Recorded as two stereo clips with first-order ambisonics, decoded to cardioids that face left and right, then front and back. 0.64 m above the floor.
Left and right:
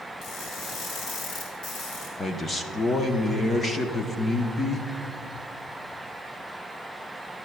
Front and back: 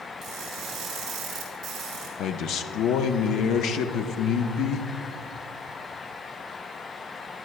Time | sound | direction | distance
0.2 | crushing | 125° left | 4 m
2.2 | a man speaking | 20° left | 0.7 m